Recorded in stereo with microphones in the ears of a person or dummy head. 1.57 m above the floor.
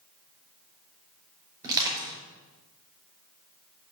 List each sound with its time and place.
1.6 s crushing: 15° right (ahead or behind), 5 m